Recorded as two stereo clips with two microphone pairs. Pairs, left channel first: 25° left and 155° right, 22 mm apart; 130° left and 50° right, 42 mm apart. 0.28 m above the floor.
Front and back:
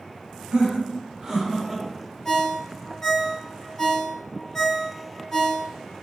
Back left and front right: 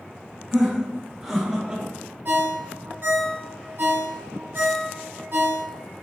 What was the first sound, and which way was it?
Laughter, 140° right.